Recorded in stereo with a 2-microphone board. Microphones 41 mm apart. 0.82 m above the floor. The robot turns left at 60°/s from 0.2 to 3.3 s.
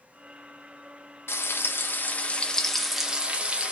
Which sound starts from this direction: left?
Frying, at 1.3 s.